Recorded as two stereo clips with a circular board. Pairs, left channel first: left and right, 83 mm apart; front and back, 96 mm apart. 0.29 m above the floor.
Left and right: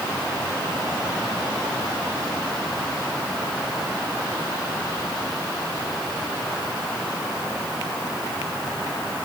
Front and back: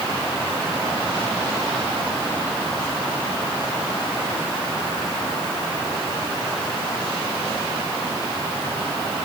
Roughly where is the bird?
I don't hear a bird.